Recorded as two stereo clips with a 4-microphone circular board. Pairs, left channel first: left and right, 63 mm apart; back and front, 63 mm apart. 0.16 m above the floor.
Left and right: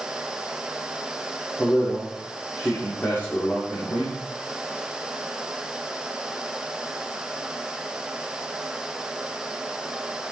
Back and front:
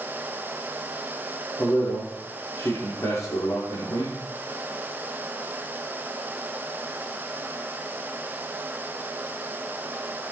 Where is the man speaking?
145° left, 9 m.